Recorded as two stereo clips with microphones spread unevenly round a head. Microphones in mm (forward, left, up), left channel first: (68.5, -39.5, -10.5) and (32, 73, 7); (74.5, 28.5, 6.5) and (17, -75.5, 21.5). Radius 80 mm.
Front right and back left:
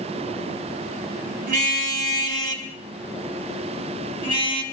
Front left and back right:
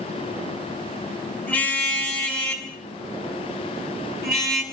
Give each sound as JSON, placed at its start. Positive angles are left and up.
{"t": 1.5, "sound": "a car horn", "azimuth_deg": 145, "distance_m": 3.5}